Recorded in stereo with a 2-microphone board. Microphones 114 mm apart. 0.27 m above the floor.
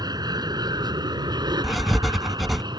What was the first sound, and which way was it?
An aircraft, 35° right (ahead or behind).